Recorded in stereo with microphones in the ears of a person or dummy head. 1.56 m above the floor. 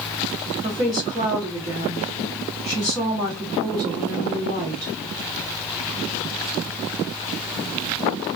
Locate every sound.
0.6 s a woman speaking: 20° right (ahead or behind), 0.7 m